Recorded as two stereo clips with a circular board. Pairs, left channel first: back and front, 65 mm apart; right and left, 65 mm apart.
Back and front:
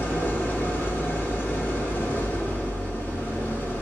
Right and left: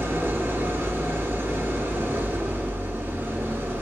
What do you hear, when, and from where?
0.0 s an engine running: 130° left, 1.4 m